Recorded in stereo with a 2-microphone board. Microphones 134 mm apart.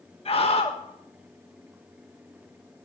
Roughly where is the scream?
Left.